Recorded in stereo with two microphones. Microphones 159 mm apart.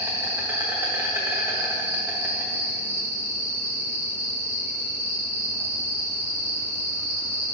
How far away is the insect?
About 1.2 m.